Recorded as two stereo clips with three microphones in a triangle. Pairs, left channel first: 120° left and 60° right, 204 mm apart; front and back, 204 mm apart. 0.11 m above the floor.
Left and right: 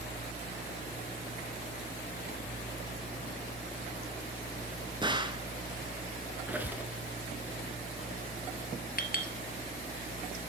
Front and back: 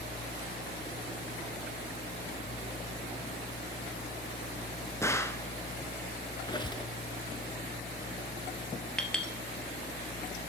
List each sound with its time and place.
5.0 s a gunshot: 55° right, 0.8 m
6.5 s a squeak: 5° left, 1.0 m
9.0 s a clink: 85° left, 1.1 m